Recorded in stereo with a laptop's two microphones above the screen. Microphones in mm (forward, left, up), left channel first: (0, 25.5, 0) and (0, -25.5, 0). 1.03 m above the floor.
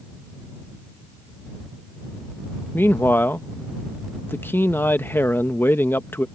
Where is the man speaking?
45° left (ahead or behind).